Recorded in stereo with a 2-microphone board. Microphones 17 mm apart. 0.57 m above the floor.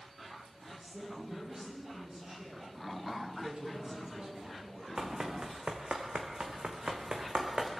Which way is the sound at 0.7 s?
35° right (ahead or behind).